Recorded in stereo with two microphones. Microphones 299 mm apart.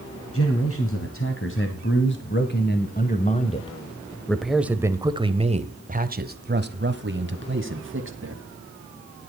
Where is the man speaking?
45° left (ahead or behind), 2.5 m; by 8.4 s 45° right (ahead or behind), 2.5 m.